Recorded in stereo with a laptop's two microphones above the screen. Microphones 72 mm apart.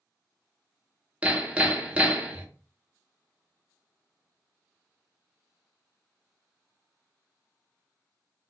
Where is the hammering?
20° right (ahead or behind), 0.6 m.